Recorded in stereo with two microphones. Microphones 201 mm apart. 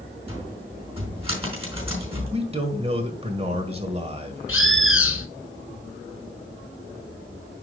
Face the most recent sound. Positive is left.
turn(degrees=85)